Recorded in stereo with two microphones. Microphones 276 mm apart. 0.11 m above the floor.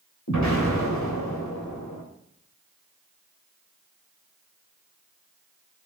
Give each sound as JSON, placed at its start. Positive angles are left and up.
{"t": 0.3, "sound": "an explosion", "side_deg": 80, "distance_m": 3.5}